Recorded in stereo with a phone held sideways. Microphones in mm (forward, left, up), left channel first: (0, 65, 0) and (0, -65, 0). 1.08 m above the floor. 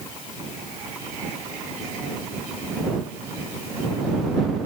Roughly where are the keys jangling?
I don't hear keys jangling.